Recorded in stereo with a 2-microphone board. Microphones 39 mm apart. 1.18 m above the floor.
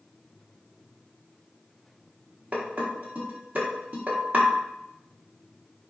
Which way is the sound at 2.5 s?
40° right (ahead or behind).